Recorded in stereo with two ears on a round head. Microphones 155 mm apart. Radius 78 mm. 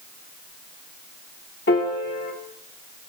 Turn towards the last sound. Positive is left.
turn(degrees=60)  # may be behind; listen again after turning